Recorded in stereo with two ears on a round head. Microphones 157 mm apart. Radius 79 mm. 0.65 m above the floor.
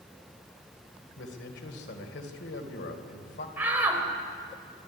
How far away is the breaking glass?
No breaking glass in this recording.